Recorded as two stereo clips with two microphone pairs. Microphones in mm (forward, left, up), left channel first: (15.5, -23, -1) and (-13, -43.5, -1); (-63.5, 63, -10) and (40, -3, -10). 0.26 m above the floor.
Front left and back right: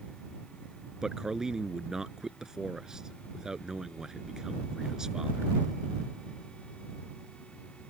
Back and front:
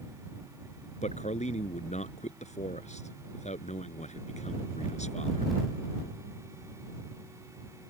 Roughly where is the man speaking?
Behind left.